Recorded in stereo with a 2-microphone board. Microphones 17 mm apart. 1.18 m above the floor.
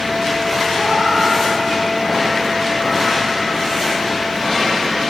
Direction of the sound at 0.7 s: 35° right (ahead or behind).